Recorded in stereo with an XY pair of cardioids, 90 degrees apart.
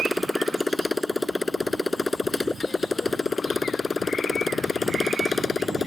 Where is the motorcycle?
10° left; by 5.9 s 40° left.